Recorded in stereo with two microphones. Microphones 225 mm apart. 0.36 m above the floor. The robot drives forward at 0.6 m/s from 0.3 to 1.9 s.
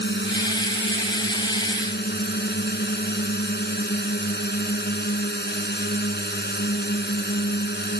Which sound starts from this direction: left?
A drone, at 0.0 s.